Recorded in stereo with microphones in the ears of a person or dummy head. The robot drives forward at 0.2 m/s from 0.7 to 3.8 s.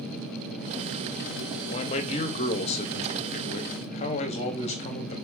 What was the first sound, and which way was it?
A man speaking, 25° left (ahead or behind).